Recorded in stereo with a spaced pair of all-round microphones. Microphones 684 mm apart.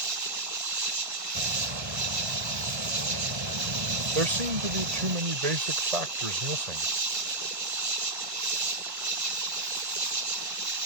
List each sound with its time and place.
0.0 s an insect: 50° right (ahead or behind)
1.4 s a bird: 40° right (ahead or behind)
4.2 s a man speaking: 60° right (ahead or behind)